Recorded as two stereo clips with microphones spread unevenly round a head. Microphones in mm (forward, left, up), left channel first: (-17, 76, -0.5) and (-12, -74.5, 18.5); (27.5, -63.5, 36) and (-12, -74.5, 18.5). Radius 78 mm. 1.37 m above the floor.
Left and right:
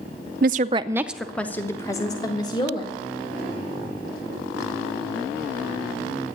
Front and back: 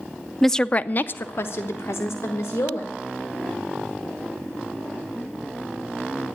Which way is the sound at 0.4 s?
65° right.